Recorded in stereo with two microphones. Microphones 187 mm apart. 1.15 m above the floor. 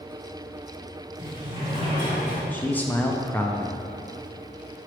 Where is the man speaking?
10° left (ahead or behind), 0.5 m.